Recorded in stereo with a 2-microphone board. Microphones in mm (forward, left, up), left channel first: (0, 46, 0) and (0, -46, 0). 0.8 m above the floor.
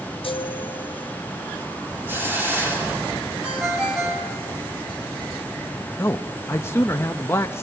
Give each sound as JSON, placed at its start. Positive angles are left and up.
{"t": 0.2, "sound": "a chime", "side_deg": 65, "distance_m": 0.9}
{"t": 2.1, "sound": "a hiss", "side_deg": -20, "distance_m": 2.5}
{"t": 3.4, "sound": "a ringtone", "side_deg": -15, "distance_m": 3.5}
{"t": 6.0, "sound": "a man speaking", "side_deg": 25, "distance_m": 0.5}